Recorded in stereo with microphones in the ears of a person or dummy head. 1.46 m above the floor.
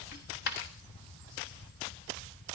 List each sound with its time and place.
0.1 s a dropped coin: 50° left (ahead or behind), 1.2 m